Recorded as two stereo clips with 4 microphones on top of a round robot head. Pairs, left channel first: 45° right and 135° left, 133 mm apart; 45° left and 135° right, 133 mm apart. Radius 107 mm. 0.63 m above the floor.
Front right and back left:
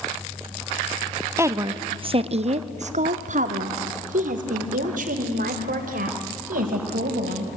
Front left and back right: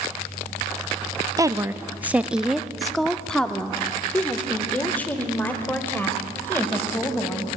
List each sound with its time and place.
1.4 s a woman speaking: 170° right, 0.8 m; by 7.5 s 120° left, 4 m